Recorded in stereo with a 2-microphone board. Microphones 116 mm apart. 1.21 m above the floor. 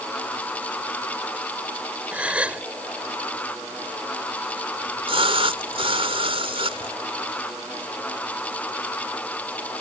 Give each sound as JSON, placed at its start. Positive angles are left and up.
{"t": 2.1, "sound": "a gasp", "side_deg": -10}
{"t": 4.8, "sound": "a splash", "side_deg": -50}